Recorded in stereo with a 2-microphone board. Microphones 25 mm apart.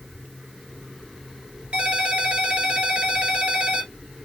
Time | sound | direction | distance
1.7 | a ringtone | 45° right (ahead or behind) | 1.3 m